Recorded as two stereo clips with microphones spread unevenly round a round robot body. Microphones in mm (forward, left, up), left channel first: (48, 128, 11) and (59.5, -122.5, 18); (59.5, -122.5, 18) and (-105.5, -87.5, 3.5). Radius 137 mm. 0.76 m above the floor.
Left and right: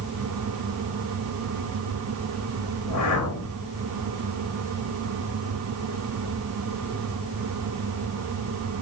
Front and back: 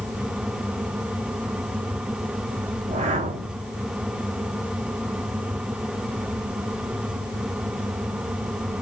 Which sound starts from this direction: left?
A whoosh, at 2.8 s.